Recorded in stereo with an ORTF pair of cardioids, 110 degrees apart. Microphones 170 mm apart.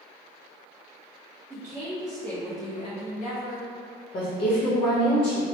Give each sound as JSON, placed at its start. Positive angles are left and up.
{"t": 1.5, "sound": "a woman speaking", "azimuth_deg": -20, "distance_m": 1.0}
{"t": 4.1, "sound": "a woman speaking", "azimuth_deg": 60, "distance_m": 0.9}